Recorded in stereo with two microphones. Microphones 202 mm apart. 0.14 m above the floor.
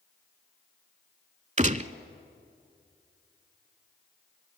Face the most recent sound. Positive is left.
turn(degrees=-35)  # may be behind; listen again after turning